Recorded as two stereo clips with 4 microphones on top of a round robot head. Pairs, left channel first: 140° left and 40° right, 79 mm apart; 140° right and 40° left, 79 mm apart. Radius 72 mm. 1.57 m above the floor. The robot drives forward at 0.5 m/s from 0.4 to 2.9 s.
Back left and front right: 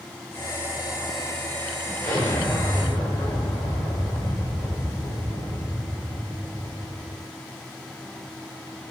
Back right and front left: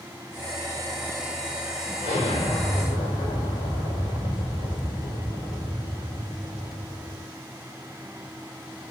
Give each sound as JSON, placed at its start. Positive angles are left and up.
{"t": 2.0, "sound": "an explosion", "azimuth_deg": -165, "distance_m": 1.8}